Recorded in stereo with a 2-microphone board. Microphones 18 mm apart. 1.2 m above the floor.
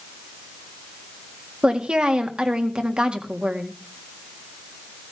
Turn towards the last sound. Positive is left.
turn(degrees=-80)